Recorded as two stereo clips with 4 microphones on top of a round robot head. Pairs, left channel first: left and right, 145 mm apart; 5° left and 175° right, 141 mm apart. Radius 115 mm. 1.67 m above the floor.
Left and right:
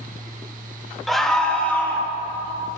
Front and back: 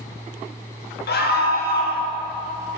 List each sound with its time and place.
1.1 s a scream: straight ahead, 1.5 m; by 2.1 s 10° left, 2.0 m